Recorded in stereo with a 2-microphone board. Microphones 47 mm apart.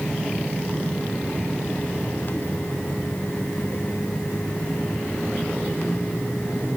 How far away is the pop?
I don't hear a pop.